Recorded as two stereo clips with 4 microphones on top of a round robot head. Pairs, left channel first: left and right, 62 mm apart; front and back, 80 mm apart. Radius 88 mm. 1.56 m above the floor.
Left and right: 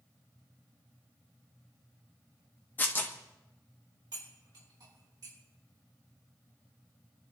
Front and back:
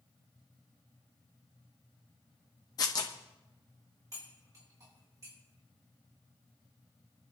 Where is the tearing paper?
35° left, 1.2 m.